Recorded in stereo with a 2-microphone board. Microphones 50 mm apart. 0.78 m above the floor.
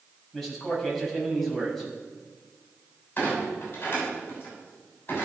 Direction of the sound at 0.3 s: 5° left (ahead or behind).